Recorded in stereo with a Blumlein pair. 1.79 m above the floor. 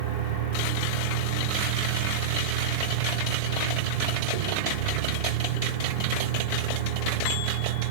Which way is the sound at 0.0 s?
50° right.